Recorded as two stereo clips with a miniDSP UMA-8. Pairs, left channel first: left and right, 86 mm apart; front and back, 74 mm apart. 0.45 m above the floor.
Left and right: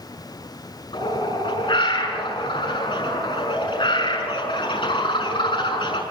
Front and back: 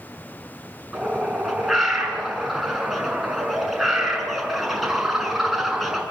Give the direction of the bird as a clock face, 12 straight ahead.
9 o'clock.